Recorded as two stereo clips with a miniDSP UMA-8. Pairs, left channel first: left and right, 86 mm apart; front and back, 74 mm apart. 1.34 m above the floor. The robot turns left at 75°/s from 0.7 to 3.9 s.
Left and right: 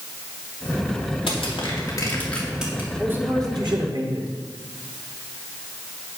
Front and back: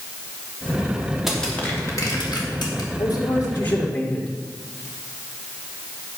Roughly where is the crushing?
Left.